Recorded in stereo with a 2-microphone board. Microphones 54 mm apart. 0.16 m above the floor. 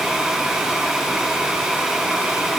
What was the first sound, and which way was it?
Only background noise.